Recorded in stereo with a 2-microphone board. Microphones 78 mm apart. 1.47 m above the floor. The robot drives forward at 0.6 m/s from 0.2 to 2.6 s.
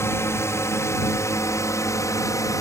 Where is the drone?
35° left (ahead or behind); by 2.6 s 45° left (ahead or behind).